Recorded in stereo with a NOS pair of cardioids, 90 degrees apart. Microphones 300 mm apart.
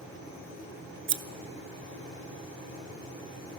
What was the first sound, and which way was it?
Scissors, 40° right.